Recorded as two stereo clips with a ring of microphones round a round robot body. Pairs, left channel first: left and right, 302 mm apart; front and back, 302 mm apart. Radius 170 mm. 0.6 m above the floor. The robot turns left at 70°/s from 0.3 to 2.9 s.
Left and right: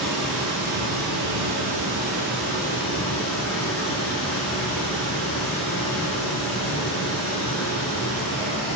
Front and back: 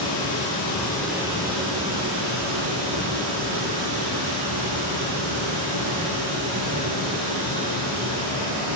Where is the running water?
35° right, 4.5 m; by 8.8 s 145° left, 4.5 m.